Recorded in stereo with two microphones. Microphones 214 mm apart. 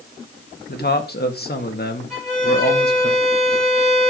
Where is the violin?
Centre (ahead or behind), 7.5 m.